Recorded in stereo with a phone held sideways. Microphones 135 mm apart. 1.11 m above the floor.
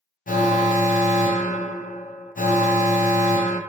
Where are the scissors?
I don't hear scissors.